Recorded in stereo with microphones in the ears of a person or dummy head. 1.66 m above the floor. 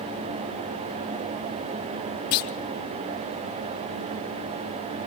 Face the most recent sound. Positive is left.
turn(degrees=45)  # may be behind; listen again after turning